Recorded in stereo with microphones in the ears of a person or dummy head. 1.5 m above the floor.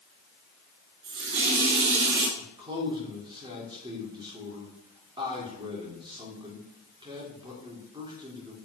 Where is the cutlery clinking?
No cutlery clinking in this recording.